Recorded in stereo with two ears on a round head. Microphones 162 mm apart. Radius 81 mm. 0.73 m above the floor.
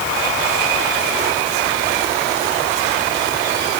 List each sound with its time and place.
Only background noise.